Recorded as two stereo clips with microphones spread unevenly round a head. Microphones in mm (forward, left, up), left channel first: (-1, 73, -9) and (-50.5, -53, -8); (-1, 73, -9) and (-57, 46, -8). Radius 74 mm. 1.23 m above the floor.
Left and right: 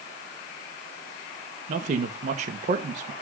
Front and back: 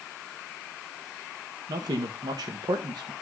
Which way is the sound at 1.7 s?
140° right.